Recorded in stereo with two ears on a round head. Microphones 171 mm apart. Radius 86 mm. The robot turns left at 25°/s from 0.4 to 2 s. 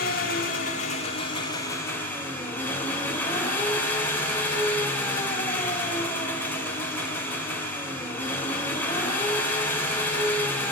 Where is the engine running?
50° left, 1.7 m; by 10.7 s 10° left, 1.7 m.